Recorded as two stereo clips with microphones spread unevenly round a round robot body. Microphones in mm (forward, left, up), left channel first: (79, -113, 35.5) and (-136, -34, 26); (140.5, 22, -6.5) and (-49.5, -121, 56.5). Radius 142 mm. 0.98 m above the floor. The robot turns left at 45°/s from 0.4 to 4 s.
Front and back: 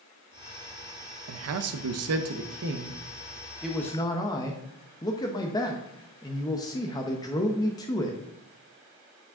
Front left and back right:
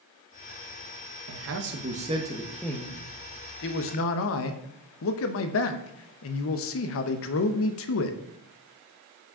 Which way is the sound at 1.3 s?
Straight behind.